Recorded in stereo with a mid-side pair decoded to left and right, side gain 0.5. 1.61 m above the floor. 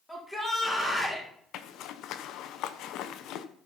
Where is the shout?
15° left, 4 m.